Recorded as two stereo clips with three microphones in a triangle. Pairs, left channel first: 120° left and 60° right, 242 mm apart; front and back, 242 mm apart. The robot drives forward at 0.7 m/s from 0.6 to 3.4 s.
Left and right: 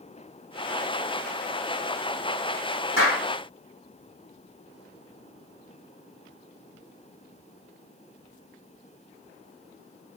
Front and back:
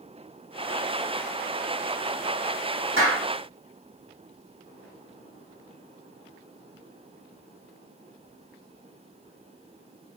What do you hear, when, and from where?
3.0 s a clap: 150° left, 6.5 m